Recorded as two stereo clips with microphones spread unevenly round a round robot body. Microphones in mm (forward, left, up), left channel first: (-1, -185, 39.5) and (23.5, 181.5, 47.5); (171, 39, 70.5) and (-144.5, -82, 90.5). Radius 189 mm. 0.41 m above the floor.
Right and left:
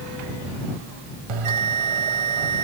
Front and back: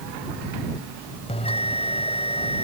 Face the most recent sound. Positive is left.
turn(degrees=95)